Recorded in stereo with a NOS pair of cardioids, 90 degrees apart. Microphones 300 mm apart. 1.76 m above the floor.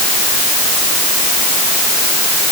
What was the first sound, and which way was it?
Only background noise.